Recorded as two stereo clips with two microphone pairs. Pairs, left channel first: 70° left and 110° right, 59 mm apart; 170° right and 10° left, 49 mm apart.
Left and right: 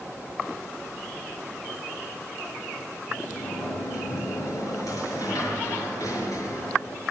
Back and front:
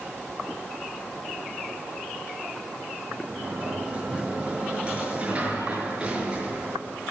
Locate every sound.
3.1 s a sliding door: 75° left, 6.5 m